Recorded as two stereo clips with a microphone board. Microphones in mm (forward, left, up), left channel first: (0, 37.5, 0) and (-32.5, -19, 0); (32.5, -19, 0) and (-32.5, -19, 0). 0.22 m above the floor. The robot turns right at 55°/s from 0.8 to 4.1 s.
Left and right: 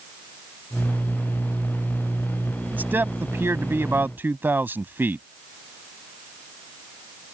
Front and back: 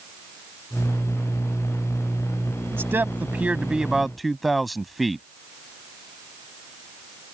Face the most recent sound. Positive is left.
turn(degrees=-90)